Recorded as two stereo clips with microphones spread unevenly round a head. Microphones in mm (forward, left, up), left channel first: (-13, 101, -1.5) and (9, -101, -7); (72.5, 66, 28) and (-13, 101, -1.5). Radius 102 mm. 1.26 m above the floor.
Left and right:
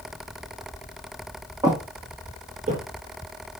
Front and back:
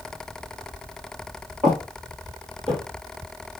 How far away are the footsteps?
About 1.3 m.